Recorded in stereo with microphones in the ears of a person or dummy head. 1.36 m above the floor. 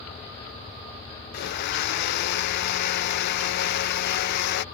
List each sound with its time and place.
1.3 s a blender: 55° left (ahead or behind)